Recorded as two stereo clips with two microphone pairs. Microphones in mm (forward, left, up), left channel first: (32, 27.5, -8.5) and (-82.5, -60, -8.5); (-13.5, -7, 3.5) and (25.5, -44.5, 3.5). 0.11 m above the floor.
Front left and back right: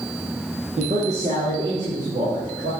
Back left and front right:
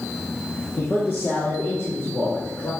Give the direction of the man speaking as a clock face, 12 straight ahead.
6 o'clock.